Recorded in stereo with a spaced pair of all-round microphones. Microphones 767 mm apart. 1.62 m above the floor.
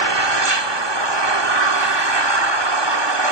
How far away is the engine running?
About 1.7 m.